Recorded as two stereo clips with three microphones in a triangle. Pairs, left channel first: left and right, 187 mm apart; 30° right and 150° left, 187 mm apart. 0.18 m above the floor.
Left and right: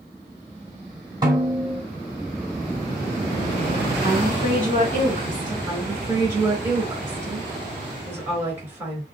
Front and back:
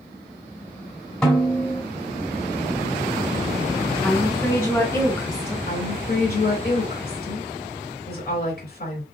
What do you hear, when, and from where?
1.2 s a snare drum: 105° right, 1.7 m
4.0 s a woman speaking: 95° right, 1.6 m
5.7 s a woman speaking: 15° right, 3 m